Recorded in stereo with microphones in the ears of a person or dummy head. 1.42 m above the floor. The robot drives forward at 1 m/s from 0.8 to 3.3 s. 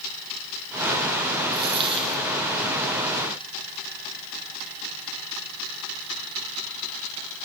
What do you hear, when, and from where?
1.5 s a dropped coin: 30° right (ahead or behind), 6 m; by 2.2 s 35° right (ahead or behind), 5.5 m